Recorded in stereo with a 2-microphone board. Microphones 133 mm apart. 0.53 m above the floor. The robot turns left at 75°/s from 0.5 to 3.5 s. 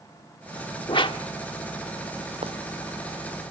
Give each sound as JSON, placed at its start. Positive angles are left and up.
{"t": 0.9, "sound": "a whoosh", "side_deg": 40, "distance_m": 1.4}
{"t": 2.4, "sound": "footsteps", "side_deg": -45, "distance_m": 1.3}